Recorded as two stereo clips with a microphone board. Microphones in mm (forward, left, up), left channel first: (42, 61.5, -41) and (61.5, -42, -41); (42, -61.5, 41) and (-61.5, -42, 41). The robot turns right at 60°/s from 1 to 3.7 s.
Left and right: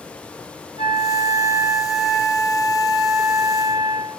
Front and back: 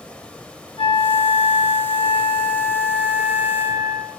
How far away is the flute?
About 0.8 m.